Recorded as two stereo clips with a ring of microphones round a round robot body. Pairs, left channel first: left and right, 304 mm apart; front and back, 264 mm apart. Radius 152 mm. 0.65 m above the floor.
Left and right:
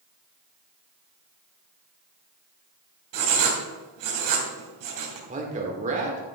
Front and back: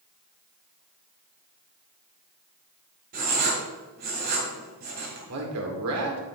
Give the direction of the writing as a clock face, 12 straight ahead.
4 o'clock.